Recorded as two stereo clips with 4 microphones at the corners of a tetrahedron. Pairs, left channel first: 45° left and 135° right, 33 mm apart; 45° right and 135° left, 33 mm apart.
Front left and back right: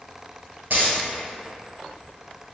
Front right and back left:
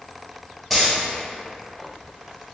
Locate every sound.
0.7 s a dropped coin: 135° right, 1.7 m